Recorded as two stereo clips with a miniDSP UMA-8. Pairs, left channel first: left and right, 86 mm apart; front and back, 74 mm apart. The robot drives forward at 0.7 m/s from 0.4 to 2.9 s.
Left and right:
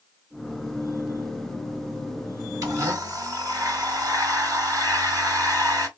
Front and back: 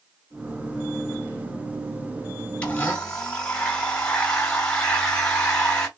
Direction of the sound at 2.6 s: 65° right.